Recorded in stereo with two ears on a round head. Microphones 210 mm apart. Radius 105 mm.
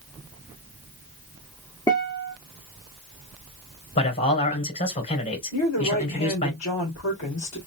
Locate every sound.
1.9 s a guitar: 15° left (ahead or behind), 1.1 m
4.0 s a man speaking: 35° left (ahead or behind), 3 m
5.5 s a woman speaking: 65° left (ahead or behind), 2 m